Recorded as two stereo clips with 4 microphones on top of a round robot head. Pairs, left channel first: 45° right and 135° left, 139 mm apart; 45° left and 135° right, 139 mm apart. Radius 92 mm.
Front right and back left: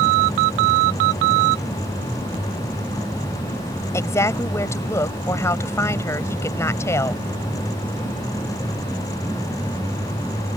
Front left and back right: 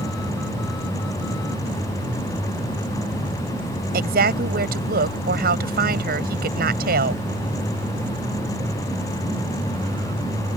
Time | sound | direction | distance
3.9 | a woman speaking | 115° right | ?